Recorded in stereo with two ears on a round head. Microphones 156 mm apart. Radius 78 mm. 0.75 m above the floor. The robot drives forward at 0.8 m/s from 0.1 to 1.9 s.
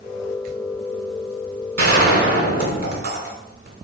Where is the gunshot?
55° right (ahead or behind), 2.5 m.